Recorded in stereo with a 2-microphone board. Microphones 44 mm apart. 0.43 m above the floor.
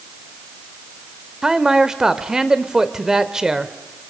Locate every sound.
1.4 s a man speaking: 15° right (ahead or behind), 1.1 m